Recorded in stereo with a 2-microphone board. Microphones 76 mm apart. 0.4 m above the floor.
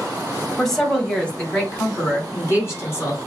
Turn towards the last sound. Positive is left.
turn(degrees=40)  # may be behind; listen again after turning